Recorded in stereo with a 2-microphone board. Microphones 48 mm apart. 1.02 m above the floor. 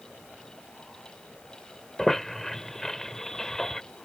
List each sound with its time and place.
2.0 s a squeak: 10° left (ahead or behind)